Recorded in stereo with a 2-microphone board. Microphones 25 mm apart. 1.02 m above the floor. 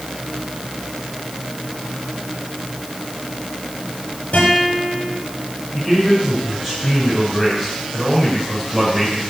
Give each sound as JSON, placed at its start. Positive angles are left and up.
{"t": 4.3, "sound": "a guitar", "side_deg": 45, "distance_m": 6.5}
{"t": 5.7, "sound": "a man speaking", "side_deg": -5, "distance_m": 5.0}